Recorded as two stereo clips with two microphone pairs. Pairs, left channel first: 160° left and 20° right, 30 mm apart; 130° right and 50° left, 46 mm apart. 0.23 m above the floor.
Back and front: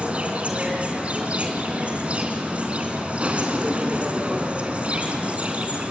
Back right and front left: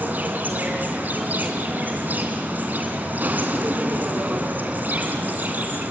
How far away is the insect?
About 3 m.